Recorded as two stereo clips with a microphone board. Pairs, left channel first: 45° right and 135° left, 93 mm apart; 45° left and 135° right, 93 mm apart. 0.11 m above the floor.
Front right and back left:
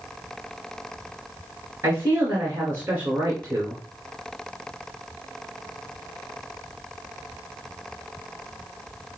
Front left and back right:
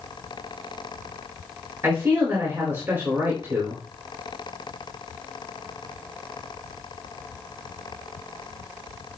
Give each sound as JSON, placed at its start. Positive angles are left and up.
{"t": 1.8, "sound": "a man speaking", "azimuth_deg": -175, "distance_m": 1.9}